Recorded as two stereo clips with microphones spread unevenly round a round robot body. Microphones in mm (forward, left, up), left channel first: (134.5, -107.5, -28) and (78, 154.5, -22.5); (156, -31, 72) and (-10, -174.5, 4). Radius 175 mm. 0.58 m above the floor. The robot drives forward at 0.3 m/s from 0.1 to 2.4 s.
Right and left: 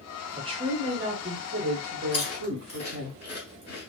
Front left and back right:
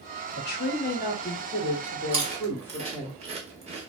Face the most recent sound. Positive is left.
turn(degrees=-140)